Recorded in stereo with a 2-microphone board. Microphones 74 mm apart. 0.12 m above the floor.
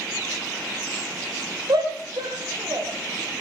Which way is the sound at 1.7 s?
70° right (ahead or behind).